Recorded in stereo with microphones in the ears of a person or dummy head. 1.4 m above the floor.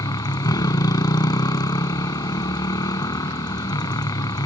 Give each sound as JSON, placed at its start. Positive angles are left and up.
{"t": 0.0, "sound": "a motorcycle", "side_deg": 20}